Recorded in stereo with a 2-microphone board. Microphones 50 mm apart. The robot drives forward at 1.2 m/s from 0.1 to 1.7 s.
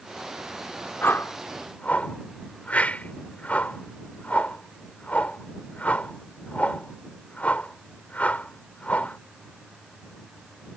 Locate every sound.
1.0 s a whoosh: 45° left (ahead or behind); by 9.2 s 30° left (ahead or behind)